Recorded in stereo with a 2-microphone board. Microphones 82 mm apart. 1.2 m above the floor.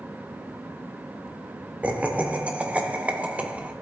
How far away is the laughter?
About 0.6 m.